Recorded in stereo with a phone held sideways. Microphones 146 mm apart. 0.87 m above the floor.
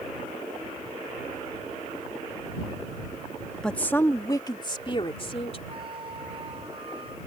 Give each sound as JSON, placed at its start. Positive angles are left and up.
{"t": 3.6, "sound": "a woman speaking", "side_deg": 5}
{"t": 5.7, "sound": "a flute", "side_deg": -40}